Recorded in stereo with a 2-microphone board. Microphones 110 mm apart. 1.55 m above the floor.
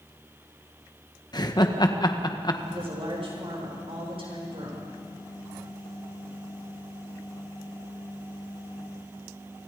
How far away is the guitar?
No guitar in this recording.